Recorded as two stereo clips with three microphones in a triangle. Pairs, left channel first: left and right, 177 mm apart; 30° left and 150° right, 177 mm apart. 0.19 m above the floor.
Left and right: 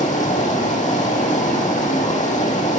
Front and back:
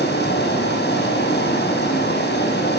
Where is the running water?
45° left, 4.5 m.